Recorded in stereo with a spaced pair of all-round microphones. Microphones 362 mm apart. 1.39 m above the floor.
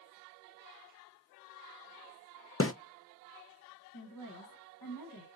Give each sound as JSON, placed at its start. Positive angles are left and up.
{"t": 2.6, "sound": "a snare drum", "side_deg": 40, "distance_m": 0.5}
{"t": 3.9, "sound": "a woman speaking", "side_deg": 65, "distance_m": 1.1}